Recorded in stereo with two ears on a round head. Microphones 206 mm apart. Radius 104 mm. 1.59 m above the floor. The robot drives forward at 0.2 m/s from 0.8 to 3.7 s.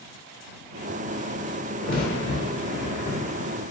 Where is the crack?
40° left (ahead or behind), 1.6 m; by 3.6 s 35° left (ahead or behind), 1.8 m.